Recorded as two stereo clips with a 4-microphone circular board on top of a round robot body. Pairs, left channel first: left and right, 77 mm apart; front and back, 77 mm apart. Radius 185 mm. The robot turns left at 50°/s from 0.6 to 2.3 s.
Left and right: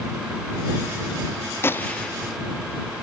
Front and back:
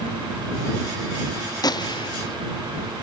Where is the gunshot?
30° left; by 2.4 s straight ahead.